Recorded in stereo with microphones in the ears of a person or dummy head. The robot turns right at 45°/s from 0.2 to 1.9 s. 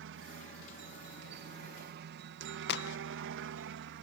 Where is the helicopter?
60° right (ahead or behind); by 4.0 s 50° right (ahead or behind).